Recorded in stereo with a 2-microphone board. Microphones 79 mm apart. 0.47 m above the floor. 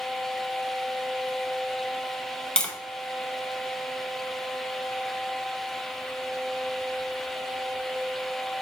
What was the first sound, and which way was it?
Tapping, 10° left (ahead or behind).